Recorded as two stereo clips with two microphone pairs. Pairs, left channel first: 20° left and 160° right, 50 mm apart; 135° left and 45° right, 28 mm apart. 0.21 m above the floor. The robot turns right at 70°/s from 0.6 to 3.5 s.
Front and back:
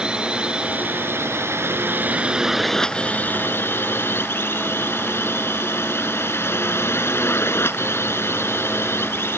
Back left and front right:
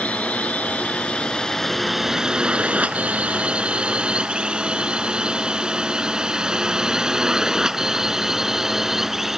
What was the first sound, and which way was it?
A drone, 135° left.